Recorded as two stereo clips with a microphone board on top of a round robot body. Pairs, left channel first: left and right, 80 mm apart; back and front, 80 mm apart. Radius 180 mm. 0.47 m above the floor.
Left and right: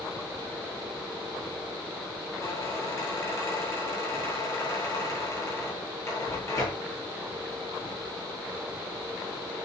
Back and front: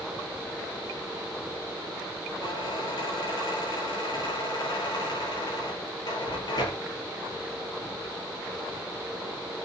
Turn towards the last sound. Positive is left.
turn(degrees=140)